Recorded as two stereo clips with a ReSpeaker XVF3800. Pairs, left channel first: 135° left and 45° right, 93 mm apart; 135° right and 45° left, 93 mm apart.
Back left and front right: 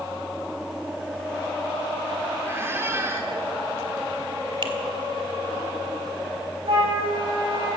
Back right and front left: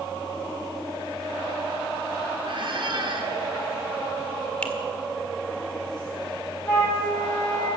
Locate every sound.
2.5 s a squeak: 20° left, 2.5 m
4.6 s a finger snap: 60° right, 1.7 m
6.7 s a flute: 70° right, 7 m